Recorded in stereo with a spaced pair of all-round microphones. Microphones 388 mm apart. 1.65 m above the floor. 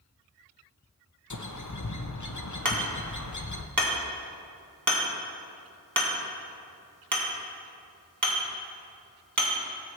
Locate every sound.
1.3 s a bird: 50° left (ahead or behind), 0.8 m
2.6 s hammering: 55° right (ahead or behind), 2 m